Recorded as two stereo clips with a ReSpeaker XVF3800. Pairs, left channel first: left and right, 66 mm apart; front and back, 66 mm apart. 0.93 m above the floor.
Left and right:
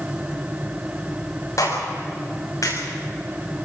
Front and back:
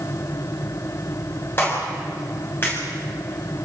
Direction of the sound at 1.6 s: 55° left.